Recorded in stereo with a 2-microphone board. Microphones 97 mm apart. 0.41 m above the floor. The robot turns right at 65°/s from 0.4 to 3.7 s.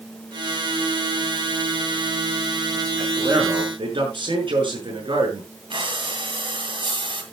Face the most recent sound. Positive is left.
turn(degrees=-65)  # may be behind; listen again after turning